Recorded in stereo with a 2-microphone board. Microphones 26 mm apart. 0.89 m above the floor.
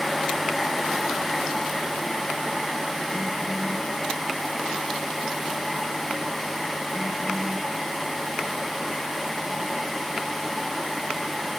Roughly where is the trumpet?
I don't hear a trumpet.